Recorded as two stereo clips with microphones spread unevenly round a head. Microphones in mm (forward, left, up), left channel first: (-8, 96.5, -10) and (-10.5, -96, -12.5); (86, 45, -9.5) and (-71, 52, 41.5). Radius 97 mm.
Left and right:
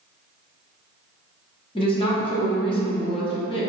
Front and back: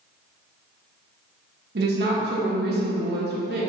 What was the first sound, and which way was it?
A woman speaking, 155° left.